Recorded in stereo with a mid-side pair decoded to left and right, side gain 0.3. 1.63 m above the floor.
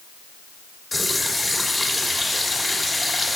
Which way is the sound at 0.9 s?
25° left.